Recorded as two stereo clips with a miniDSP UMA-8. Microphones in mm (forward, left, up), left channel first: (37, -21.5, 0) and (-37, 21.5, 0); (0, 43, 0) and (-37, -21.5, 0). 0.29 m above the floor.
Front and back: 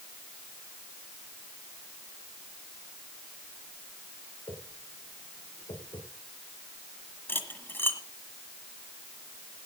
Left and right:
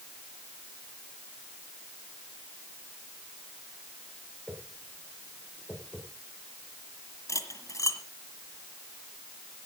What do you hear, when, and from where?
4.5 s a whoosh: 20° right, 7.5 m
7.3 s cutlery clinking: 30° left, 1.5 m